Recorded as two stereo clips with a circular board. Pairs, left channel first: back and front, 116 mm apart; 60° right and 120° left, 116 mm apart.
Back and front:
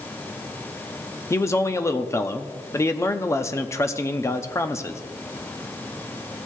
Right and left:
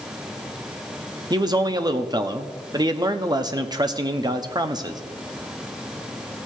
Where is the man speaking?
135° left, 0.7 m.